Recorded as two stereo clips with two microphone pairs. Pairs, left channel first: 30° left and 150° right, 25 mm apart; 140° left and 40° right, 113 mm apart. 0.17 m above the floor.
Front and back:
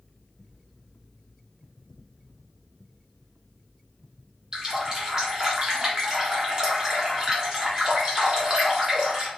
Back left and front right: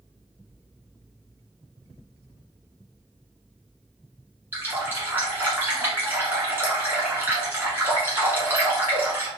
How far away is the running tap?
About 1.3 m.